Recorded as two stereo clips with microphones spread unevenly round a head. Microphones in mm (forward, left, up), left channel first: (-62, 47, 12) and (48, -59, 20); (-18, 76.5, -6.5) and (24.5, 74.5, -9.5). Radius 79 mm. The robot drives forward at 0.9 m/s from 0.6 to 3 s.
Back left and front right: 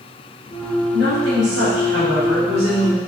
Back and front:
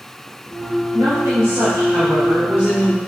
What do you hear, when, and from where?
0.9 s a woman speaking: 35° right, 3 m; by 3.0 s 75° right, 1.6 m